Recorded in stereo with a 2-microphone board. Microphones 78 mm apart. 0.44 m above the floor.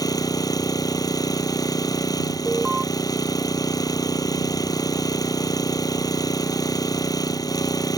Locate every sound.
0.0 s an engine running: 55° left (ahead or behind)
2.5 s an alarm: 5° right (ahead or behind)